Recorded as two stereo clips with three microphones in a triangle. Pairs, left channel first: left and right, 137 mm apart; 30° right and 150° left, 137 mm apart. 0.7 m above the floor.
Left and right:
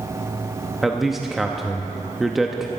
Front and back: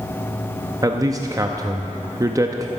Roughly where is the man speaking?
Behind.